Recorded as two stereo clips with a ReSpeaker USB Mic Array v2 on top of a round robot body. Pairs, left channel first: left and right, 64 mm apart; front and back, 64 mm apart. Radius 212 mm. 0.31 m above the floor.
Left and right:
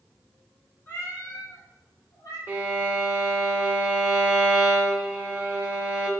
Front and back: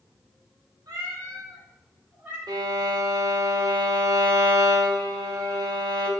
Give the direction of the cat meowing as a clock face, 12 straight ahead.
7 o'clock.